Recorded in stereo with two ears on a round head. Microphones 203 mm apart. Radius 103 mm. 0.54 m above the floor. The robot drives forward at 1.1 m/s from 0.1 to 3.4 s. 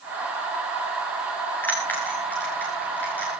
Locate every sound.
1.6 s a bell: 10° left (ahead or behind), 8.5 m